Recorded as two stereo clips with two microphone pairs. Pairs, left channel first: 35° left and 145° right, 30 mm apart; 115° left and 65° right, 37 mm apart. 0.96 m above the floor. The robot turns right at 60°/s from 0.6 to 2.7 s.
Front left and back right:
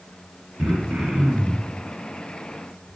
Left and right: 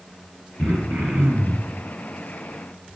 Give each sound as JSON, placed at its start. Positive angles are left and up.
{"t": 0.6, "sound": "throat clearing", "azimuth_deg": -120, "distance_m": 3.0}